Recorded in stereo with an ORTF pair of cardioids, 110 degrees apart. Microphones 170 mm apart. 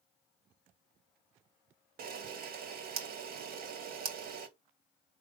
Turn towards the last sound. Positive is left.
turn(degrees=-60)